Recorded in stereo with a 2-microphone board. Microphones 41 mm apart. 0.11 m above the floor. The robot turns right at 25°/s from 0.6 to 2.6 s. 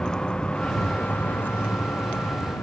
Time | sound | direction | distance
0.0 | a vehicle | 20° left (ahead or behind) | ?